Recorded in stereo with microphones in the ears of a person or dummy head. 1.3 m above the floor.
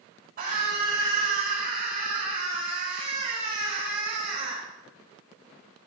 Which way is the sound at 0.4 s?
50° right (ahead or behind).